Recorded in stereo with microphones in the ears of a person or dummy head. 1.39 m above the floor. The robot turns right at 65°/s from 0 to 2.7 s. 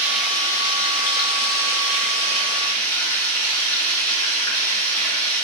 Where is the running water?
15° right, 0.9 m; by 5.5 s 165° left, 0.9 m.